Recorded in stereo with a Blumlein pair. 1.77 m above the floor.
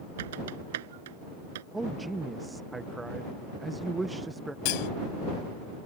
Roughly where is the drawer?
No drawer in this recording.